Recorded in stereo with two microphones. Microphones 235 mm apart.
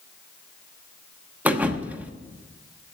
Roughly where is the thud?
Centre.